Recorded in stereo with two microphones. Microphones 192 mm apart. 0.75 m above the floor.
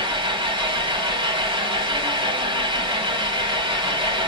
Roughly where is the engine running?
Right.